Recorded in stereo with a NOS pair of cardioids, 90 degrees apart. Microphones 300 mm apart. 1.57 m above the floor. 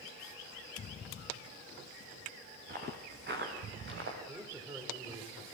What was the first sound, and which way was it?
Footsteps, 35° right.